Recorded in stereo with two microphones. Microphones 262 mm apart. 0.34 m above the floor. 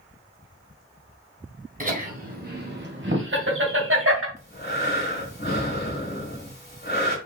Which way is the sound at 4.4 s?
40° left (ahead or behind).